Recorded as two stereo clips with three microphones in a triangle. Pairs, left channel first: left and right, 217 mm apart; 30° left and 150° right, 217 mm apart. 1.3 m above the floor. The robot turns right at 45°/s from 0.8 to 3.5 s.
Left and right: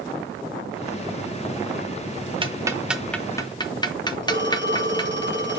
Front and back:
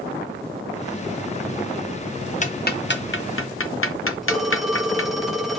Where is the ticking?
25° right, 0.8 m; by 5.2 s 20° left, 0.8 m.